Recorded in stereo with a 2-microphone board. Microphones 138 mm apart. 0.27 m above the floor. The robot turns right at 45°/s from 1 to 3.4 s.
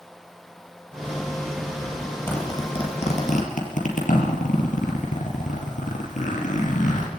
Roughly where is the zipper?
Centre.